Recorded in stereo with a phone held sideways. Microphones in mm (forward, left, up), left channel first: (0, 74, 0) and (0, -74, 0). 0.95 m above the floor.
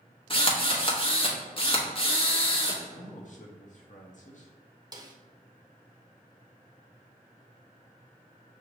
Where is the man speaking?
55° left (ahead or behind), 0.8 m.